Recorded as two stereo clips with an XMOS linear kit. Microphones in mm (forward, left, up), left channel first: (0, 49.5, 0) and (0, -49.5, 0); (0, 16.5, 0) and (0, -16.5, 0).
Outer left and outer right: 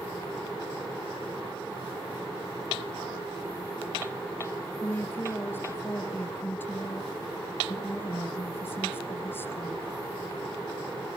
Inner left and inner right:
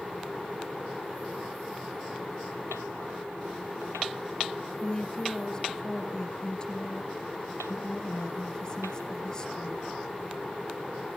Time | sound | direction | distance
4.8 | a woman speaking | 20° left (ahead or behind) | 3 m